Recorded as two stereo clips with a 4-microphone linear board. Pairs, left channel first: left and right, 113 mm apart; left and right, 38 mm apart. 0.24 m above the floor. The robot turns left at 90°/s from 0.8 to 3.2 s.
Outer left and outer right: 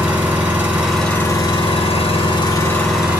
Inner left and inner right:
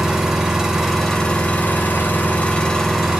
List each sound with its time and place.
0.0 s an engine running: 165° right, 1.2 m; by 3.2 s 20° right, 1.2 m